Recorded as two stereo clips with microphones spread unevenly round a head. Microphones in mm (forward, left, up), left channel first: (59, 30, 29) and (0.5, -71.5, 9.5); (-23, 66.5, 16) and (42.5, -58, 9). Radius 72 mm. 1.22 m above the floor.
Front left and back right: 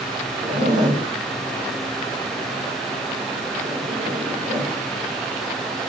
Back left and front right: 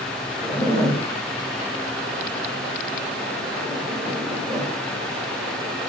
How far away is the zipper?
About 4.5 m.